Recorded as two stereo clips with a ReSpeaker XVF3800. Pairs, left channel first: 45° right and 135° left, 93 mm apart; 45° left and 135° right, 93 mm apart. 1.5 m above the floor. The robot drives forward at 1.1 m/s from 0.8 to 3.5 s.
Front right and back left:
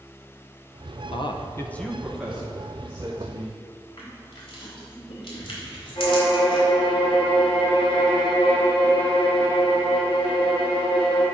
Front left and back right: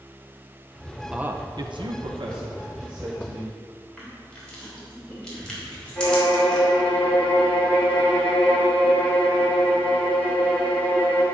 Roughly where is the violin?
Ahead right.